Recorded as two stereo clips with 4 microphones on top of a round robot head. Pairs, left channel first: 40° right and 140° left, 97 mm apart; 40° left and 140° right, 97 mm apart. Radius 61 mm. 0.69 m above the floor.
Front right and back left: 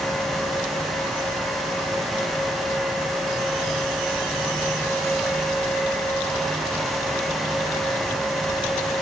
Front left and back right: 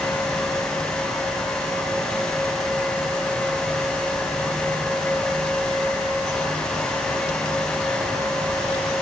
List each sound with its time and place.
Only background noise.